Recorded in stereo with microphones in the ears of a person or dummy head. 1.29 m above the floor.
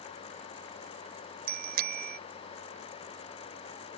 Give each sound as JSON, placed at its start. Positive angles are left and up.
{"t": 1.5, "sound": "a bicycle bell", "side_deg": -60}